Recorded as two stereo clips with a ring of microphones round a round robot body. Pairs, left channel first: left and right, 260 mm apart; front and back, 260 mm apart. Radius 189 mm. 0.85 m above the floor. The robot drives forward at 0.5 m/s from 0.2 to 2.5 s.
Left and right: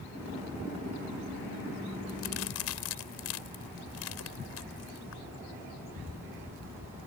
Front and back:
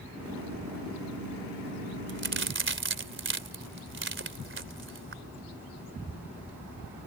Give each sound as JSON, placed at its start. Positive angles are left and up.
{"t": 2.1, "sound": "a crack", "azimuth_deg": 135}